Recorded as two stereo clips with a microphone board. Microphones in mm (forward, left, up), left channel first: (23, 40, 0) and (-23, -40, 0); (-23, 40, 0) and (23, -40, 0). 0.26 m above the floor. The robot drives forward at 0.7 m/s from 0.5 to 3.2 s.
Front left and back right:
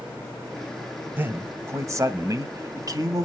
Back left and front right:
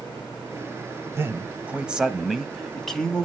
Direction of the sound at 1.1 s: 80° right.